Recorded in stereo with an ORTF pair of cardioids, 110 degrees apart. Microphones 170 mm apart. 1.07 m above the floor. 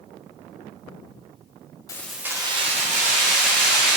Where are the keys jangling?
20° left, 0.5 m; by 4.0 s 60° right, 1.7 m.